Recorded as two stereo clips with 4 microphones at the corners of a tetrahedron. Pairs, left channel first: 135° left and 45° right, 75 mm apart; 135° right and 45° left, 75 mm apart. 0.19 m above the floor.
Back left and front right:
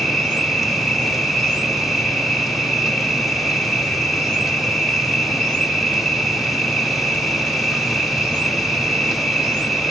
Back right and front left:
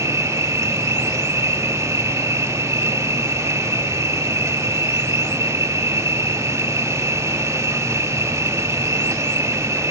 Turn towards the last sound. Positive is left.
turn(degrees=45)